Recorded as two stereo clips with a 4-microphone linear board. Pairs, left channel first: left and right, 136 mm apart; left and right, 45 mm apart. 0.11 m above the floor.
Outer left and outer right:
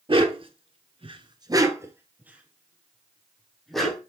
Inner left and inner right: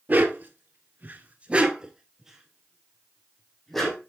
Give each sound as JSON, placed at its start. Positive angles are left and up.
{"t": 0.1, "sound": "a dog barking", "side_deg": -40, "distance_m": 1.1}